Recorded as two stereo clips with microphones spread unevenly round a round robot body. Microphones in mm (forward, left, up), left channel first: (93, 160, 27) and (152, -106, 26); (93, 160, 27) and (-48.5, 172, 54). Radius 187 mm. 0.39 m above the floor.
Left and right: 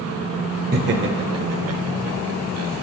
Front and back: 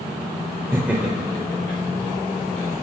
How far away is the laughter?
About 1.2 m.